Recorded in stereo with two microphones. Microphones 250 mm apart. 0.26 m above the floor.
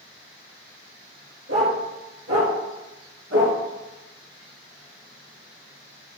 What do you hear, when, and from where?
1.5 s a dog barking: 80° right, 2.5 m; by 3.6 s 75° right (ahead or behind), 1.5 m